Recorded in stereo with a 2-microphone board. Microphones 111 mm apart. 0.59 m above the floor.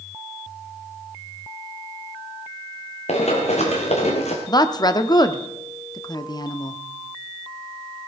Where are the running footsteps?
75° left (ahead or behind), 2.5 m.